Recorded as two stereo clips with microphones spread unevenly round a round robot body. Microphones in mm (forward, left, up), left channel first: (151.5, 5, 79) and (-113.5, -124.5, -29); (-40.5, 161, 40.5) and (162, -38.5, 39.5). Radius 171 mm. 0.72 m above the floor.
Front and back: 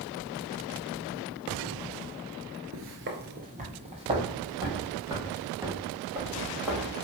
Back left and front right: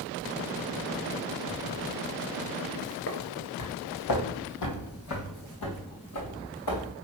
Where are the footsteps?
160° left, 0.7 m; by 6.9 s 115° left, 4 m.